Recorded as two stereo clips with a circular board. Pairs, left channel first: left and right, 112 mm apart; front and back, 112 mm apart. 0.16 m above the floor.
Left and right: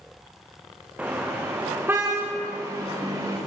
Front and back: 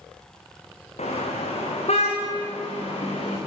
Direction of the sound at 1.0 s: 10° right.